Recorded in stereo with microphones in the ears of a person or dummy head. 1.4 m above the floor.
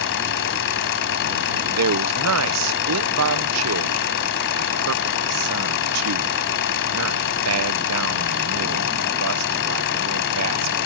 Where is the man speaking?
80° right.